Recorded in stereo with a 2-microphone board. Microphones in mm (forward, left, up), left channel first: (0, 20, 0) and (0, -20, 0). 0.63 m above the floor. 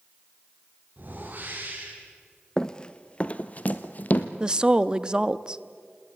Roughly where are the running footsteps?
Centre.